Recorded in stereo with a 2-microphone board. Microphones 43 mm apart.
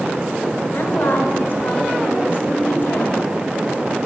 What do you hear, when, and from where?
0.7 s a woman speaking: 40° left (ahead or behind), 1.8 m